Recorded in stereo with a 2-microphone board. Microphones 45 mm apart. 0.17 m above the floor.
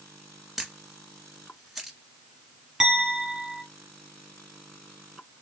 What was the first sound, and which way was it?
A camera shutter, 5° right (ahead or behind).